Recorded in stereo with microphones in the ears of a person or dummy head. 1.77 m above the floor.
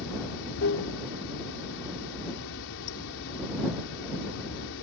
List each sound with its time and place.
0.0 s running water: 70° left (ahead or behind)